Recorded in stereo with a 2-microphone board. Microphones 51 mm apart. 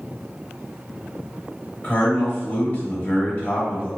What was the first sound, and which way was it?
A man speaking, 35° left (ahead or behind).